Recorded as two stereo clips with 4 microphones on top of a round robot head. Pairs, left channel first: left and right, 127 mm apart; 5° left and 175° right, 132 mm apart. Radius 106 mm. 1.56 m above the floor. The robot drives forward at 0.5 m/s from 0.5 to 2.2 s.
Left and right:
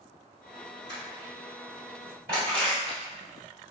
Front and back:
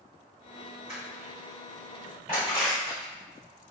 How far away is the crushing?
About 1.8 m.